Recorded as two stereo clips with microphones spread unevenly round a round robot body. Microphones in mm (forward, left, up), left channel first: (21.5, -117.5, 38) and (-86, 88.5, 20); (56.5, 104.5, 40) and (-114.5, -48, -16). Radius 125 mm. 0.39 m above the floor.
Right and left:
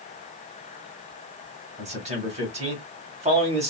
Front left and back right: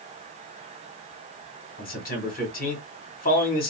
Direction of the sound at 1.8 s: 90° left.